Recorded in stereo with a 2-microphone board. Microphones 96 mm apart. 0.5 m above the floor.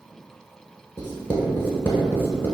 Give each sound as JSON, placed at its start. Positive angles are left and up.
{"t": 1.0, "sound": "writing", "side_deg": 25, "distance_m": 0.8}